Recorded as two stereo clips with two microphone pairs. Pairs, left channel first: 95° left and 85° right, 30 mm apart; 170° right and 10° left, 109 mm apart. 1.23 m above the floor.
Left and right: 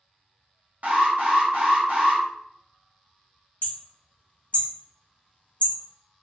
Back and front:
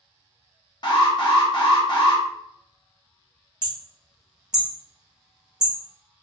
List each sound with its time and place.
0.8 s an alarm: 120° right, 0.9 m
3.6 s hammering: 90° left, 0.6 m